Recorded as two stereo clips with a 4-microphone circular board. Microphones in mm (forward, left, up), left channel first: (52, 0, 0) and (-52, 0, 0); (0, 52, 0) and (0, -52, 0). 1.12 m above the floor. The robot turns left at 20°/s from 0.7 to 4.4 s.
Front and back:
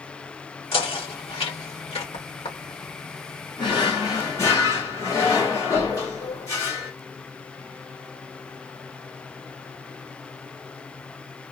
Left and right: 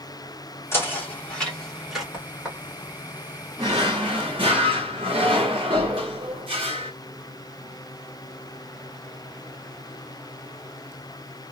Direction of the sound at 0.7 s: 25° left.